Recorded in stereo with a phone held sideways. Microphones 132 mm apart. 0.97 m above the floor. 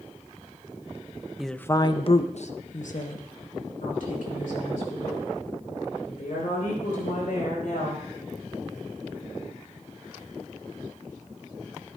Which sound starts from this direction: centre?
A woman speaking, at 1.4 s.